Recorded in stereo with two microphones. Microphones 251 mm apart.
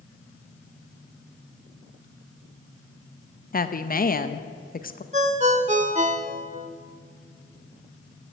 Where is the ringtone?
30° right (ahead or behind), 0.8 m.